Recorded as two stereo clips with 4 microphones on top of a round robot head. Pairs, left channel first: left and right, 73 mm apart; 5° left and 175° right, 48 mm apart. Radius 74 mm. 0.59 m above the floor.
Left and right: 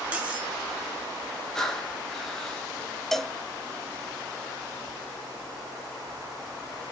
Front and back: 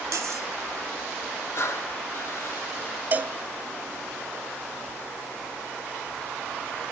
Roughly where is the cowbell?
Behind.